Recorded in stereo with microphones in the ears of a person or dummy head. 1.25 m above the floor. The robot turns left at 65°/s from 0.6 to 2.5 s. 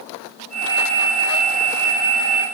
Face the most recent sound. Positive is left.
No sound to turn to.